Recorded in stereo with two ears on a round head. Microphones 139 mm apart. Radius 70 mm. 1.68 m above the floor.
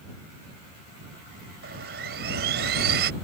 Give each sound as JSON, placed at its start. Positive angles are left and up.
{"t": 1.6, "sound": "sawing", "side_deg": -65}